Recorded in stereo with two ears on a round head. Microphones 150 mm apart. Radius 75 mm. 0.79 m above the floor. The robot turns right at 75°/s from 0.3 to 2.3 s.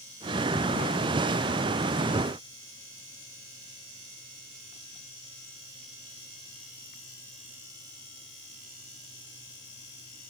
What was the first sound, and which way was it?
Only background noise.